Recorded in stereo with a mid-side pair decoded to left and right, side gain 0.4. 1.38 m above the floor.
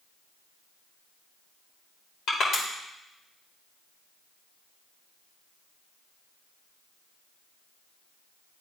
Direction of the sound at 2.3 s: 70° left.